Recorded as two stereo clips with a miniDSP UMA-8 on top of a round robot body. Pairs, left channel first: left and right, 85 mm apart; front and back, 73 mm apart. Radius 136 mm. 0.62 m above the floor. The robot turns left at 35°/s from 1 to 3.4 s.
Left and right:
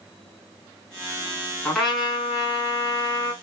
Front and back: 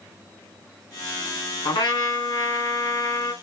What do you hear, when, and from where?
1.6 s a trumpet: 10° left, 3 m; by 3.3 s 50° right, 3 m